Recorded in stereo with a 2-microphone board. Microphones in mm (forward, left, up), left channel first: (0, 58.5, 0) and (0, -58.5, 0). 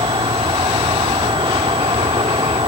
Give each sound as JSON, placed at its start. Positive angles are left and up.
{"t": 0.0, "sound": "an insect", "side_deg": -50}